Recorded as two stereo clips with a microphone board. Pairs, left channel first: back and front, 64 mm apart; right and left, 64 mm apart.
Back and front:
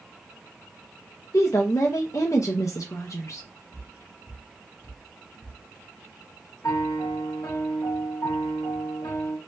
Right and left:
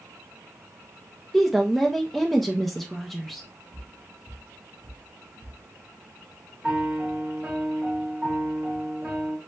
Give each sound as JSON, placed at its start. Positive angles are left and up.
{"t": 1.3, "sound": "a woman speaking", "azimuth_deg": -175, "distance_m": 0.6}
{"t": 3.7, "sound": "footsteps", "azimuth_deg": 150, "distance_m": 1.8}
{"t": 6.6, "sound": "a piano", "azimuth_deg": 165, "distance_m": 1.0}